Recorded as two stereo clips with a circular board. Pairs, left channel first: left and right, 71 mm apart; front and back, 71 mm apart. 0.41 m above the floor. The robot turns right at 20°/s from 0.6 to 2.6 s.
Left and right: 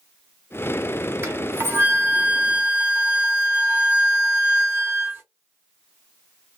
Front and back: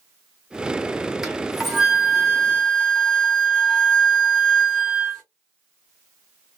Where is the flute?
100° right, 1.5 m; by 5.2 s 75° right, 1.5 m.